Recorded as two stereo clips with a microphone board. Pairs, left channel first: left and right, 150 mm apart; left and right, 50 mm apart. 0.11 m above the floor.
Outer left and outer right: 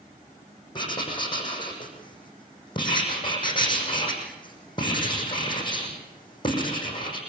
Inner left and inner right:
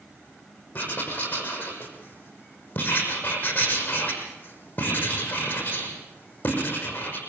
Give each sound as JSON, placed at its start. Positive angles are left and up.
{"t": 0.8, "sound": "writing", "side_deg": 30, "distance_m": 6.0}